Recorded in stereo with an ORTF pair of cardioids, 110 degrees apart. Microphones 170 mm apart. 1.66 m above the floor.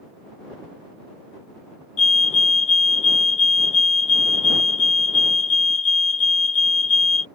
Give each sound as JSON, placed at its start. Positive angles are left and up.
{"t": 2.0, "sound": "a fire alarm", "azimuth_deg": 45}